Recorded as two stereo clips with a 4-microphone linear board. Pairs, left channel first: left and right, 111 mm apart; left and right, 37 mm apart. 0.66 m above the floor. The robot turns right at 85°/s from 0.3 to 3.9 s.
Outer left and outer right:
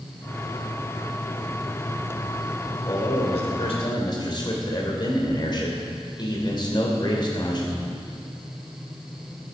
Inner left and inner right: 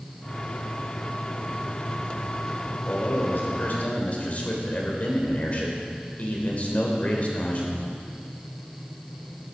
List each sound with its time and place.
2.9 s a man speaking: 45° left, 3 m; by 7.8 s 135° left, 3 m